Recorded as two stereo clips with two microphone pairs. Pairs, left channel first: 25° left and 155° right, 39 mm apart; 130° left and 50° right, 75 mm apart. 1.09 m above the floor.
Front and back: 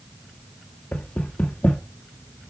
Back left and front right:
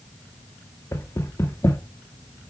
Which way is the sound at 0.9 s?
75° left.